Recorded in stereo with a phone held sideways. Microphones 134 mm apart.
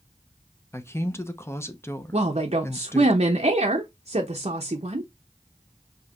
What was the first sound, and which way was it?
A man speaking, 20° left (ahead or behind).